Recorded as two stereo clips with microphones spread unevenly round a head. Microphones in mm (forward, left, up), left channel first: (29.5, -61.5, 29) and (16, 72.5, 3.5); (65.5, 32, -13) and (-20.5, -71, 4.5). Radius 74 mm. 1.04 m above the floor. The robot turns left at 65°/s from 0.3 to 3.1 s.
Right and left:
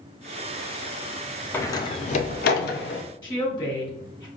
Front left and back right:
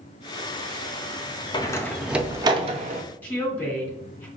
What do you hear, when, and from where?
1.5 s a door slam: 10° right, 0.7 m; by 3.0 s 105° right, 0.7 m
3.2 s a woman speaking: 25° right, 2.5 m